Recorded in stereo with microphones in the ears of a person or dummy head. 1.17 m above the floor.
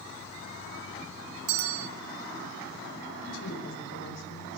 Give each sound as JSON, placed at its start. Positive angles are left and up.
{"t": 1.5, "sound": "a bell", "side_deg": -65, "distance_m": 1.0}
{"t": 3.2, "sound": "a woman speaking", "side_deg": 70, "distance_m": 5.5}